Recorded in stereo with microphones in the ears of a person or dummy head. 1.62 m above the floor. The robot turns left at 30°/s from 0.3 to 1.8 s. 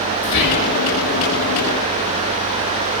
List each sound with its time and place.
0.2 s whispering: 65° left (ahead or behind), 0.5 m; by 0.8 s 50° left (ahead or behind), 0.5 m